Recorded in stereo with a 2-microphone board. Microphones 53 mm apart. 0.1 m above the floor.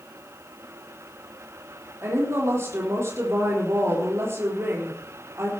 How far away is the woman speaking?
About 4 m.